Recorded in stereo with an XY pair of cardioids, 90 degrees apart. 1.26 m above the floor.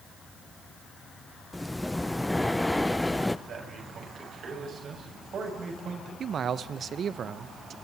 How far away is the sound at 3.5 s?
About 7.5 m.